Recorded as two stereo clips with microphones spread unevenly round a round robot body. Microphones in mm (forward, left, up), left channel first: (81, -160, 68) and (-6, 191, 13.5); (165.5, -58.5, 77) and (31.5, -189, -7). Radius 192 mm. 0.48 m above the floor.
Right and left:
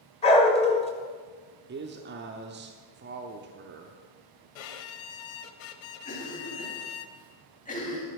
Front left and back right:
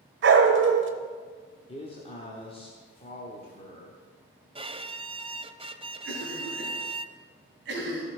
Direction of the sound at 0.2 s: 155° right.